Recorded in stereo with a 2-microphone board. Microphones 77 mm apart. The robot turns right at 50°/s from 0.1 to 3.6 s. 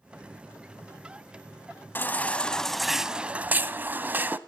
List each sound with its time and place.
1.9 s a baby crying: 135° left, 0.6 m; by 4.4 s 140° right, 0.6 m